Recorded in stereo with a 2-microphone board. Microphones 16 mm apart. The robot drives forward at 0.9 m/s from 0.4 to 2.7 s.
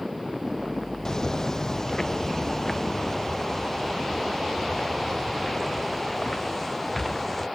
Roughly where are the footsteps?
Left.